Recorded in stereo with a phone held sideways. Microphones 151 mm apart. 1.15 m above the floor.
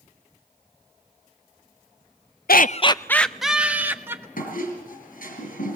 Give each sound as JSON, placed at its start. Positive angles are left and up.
{"t": 2.5, "sound": "laughter", "side_deg": 75, "distance_m": 0.5}
{"t": 4.4, "sound": "a squeak", "side_deg": 65, "distance_m": 4.5}